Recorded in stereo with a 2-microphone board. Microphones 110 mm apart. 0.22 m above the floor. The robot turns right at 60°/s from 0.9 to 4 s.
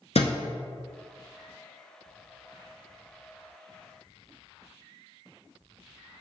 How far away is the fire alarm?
I don't hear a fire alarm.